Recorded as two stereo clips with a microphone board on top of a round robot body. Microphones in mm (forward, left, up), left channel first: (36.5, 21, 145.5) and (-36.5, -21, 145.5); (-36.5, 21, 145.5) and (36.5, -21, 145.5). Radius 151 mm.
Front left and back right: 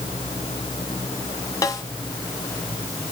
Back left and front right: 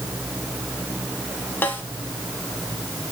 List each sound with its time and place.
1.6 s a snare drum: 80° left, 2 m